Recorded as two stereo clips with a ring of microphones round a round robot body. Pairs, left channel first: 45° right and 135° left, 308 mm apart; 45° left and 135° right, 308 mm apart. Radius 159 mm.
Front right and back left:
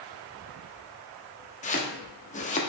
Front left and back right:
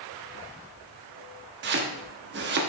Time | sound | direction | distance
1.6 | chopping | 100° right | 1.0 m